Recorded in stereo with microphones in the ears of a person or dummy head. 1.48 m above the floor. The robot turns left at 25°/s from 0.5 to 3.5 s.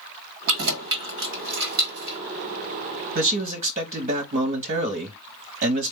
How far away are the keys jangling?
About 1.3 m.